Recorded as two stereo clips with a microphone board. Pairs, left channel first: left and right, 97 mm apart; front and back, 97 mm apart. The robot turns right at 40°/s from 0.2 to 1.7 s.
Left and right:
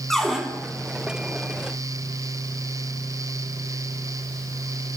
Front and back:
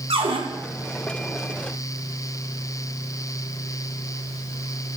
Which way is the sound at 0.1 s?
175° left.